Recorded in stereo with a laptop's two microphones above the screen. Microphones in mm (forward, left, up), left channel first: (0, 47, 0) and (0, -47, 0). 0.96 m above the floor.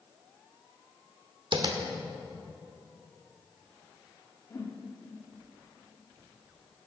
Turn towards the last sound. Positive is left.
turn(degrees=35)  # may be behind; listen again after turning